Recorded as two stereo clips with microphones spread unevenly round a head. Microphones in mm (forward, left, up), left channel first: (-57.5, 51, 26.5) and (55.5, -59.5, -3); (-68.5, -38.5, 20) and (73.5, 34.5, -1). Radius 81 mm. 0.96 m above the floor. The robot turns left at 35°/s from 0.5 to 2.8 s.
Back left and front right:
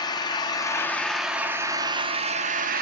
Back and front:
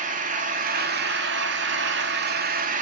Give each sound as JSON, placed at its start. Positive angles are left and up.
{"t": 0.0, "sound": "an engine running", "azimuth_deg": 70, "distance_m": 1.6}